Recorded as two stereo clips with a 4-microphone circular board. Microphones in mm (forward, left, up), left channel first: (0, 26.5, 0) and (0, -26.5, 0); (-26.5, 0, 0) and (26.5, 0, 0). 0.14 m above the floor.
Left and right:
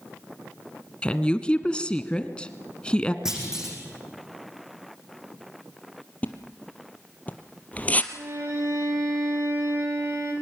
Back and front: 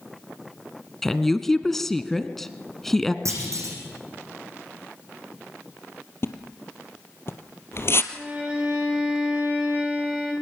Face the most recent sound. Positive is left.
turn(degrees=-70)